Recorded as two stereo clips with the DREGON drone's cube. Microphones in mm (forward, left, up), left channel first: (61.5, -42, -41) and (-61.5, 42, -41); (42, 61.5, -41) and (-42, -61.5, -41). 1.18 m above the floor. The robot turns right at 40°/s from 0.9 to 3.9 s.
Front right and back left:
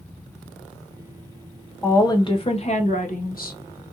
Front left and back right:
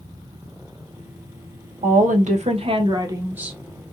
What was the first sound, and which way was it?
A woman speaking, 110° right.